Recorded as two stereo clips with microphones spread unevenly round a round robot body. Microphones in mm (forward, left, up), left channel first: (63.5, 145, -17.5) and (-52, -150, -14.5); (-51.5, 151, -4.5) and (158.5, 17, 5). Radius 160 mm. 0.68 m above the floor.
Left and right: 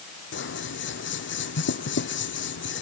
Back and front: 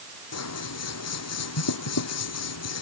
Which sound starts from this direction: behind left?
Scissors, at 0.3 s.